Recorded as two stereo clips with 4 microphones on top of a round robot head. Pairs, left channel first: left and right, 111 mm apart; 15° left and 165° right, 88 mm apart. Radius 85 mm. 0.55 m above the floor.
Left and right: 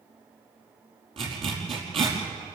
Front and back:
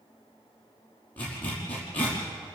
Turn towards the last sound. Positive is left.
turn(degrees=-65)